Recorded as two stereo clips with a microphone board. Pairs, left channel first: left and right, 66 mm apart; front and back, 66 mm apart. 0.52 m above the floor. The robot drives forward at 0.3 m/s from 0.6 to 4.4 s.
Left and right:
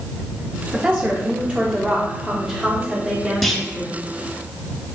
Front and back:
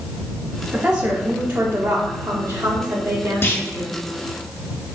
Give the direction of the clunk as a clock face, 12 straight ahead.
12 o'clock.